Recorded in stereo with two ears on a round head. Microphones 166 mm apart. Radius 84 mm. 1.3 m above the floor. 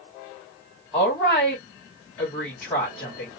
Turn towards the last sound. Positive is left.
turn(degrees=5)  # may be behind; listen again after turning